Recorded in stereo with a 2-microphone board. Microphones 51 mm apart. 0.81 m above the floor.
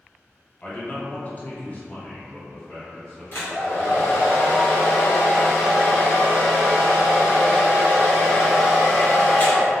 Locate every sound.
0.6 s a man speaking: 30° left (ahead or behind), 1.0 m; by 4.3 s 5° left (ahead or behind), 2 m
3.3 s a hair dryer: 50° left (ahead or behind), 1.5 m